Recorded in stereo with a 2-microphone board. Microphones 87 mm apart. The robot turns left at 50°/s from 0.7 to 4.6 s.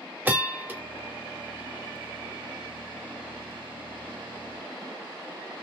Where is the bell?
20° right (ahead or behind), 1.2 m; by 0.8 s 15° right (ahead or behind), 1.2 m.